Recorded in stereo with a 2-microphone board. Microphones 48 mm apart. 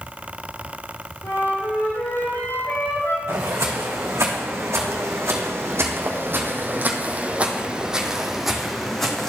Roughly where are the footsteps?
Right.